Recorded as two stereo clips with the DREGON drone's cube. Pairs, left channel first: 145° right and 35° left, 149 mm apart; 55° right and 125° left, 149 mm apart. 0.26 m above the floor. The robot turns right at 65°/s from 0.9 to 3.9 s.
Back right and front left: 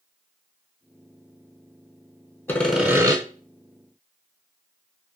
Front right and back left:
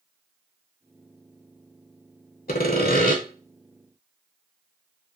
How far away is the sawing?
About 0.5 m.